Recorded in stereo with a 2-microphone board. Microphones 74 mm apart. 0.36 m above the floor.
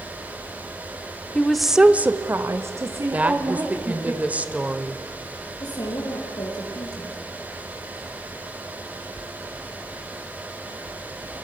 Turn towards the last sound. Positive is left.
turn(degrees=65)  # may be behind; listen again after turning